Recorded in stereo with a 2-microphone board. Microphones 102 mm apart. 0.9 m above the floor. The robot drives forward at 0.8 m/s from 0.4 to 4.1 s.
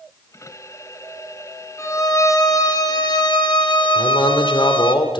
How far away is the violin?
About 2.5 m.